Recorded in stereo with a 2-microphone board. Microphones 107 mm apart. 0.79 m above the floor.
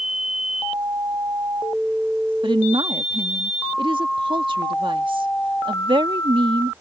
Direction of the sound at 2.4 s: 50° right (ahead or behind).